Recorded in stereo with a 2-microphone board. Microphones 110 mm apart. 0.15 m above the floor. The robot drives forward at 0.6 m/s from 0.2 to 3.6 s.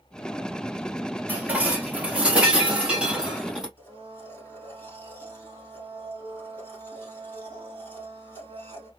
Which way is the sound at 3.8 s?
15° left (ahead or behind).